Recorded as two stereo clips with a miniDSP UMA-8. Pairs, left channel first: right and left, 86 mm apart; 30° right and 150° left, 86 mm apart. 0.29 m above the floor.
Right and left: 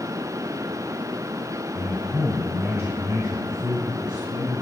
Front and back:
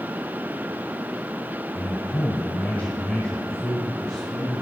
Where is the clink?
No clink in this recording.